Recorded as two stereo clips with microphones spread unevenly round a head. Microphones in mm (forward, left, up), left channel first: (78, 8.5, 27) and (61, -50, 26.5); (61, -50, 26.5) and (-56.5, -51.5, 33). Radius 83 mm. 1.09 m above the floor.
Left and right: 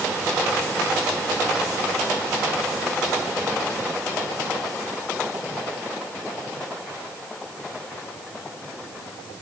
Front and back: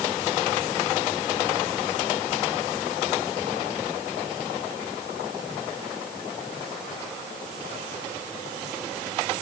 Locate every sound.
Only background noise.